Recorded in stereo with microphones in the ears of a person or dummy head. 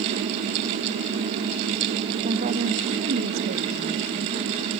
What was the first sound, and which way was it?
A woman speaking, 35° right (ahead or behind).